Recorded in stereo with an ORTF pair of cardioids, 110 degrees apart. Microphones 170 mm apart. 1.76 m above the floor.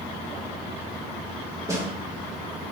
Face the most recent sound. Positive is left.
turn(degrees=-20)